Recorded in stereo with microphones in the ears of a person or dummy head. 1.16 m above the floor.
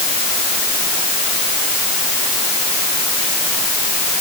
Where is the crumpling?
No crumpling in this recording.